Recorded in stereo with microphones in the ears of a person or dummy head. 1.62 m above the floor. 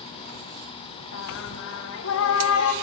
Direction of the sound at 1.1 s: 70° left (ahead or behind).